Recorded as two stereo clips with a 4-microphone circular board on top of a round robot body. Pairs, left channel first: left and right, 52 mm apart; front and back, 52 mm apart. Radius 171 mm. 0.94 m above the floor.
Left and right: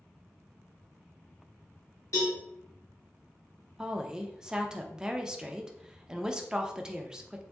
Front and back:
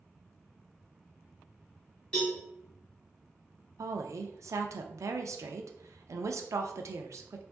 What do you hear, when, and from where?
2.1 s a cowbell: 75° left, 0.9 m
3.8 s a woman speaking: 165° right, 0.5 m